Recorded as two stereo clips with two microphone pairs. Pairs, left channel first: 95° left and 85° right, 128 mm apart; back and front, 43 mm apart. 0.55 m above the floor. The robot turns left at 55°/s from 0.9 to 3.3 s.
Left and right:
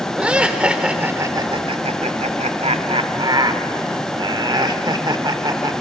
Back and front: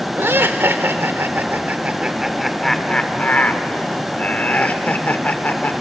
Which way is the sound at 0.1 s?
5° right.